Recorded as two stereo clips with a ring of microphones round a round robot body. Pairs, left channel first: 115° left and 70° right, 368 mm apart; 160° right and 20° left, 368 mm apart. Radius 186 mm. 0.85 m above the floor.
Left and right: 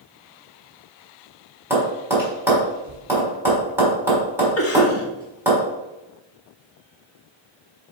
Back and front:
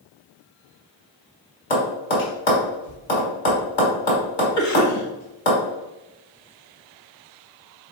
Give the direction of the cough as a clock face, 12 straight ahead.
7 o'clock.